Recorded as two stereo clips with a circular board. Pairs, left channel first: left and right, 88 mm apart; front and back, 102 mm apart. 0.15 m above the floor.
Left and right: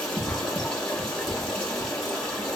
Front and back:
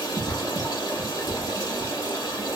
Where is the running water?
5° left, 1.4 m.